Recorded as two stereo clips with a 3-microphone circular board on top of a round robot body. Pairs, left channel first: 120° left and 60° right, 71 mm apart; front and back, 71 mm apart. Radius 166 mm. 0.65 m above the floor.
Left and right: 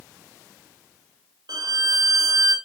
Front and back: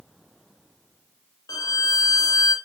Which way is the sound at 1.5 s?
35° right.